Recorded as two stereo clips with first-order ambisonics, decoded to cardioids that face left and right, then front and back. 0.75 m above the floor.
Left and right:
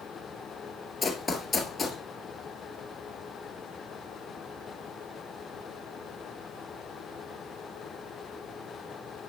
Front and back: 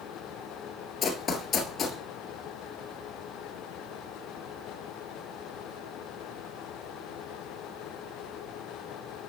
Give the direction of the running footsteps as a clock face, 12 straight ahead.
11 o'clock.